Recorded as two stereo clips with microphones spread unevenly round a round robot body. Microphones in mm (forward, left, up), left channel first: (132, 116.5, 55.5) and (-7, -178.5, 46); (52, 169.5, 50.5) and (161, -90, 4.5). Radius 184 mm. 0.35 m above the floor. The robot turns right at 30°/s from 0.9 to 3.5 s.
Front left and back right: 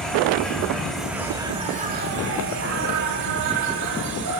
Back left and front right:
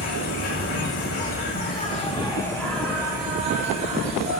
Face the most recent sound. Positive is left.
turn(degrees=-130)